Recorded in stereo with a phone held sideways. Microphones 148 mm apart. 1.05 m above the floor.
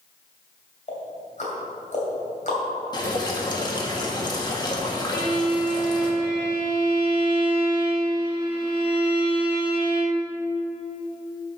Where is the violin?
30° right (ahead or behind), 1.8 m.